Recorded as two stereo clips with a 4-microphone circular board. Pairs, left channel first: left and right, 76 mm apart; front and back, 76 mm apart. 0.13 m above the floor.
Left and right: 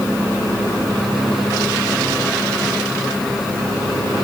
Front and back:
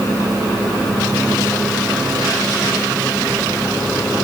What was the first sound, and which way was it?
Only background noise.